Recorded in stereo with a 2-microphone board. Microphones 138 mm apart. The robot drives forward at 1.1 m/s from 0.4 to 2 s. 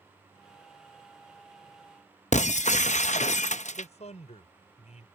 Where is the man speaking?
60° left (ahead or behind).